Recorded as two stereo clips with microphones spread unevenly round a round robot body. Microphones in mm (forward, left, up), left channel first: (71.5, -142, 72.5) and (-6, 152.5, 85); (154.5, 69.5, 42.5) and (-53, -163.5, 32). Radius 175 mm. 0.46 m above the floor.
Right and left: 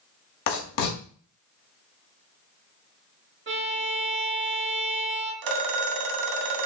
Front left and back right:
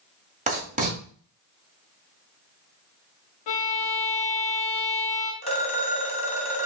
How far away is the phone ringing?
About 0.9 m.